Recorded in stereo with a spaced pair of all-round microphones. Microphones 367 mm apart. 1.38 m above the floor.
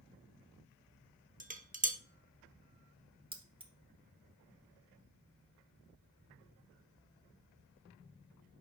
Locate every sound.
1.4 s dishes clattering: 20° right (ahead or behind), 0.7 m
3.3 s keys jangling: 15° right (ahead or behind), 0.9 m